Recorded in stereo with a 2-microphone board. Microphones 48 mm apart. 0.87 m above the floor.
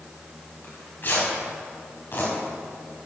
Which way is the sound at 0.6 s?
45° left (ahead or behind).